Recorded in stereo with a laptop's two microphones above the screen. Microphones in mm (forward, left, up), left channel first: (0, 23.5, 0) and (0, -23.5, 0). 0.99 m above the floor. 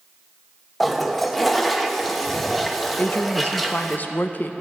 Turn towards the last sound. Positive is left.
turn(degrees=40)  # may be behind; listen again after turning